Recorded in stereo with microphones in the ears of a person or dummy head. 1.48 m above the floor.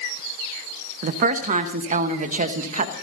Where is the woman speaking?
45° right (ahead or behind), 1.0 m.